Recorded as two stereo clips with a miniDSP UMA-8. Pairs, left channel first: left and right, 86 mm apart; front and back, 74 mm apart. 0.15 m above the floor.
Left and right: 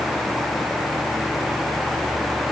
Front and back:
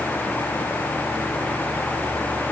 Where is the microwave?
No microwave in this recording.